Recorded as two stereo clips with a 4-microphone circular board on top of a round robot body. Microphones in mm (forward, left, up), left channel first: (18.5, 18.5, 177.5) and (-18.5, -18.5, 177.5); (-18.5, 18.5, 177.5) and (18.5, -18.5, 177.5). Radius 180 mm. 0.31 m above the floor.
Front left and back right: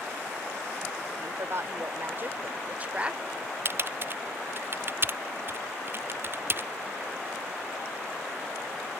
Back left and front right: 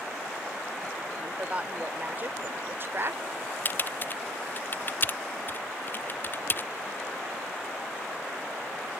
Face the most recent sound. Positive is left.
turn(degrees=180)